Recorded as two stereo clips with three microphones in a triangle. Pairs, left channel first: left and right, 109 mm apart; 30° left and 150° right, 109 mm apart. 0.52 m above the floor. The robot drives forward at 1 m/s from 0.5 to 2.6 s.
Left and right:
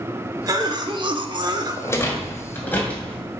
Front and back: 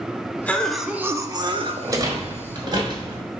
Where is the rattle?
155° left, 1.2 m; by 3.2 s 165° left, 1.9 m.